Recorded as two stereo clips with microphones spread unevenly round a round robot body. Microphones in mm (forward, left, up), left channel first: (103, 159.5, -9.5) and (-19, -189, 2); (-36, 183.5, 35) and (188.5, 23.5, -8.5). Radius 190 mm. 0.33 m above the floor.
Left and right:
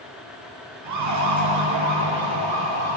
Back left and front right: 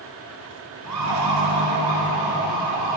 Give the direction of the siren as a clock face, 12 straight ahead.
2 o'clock.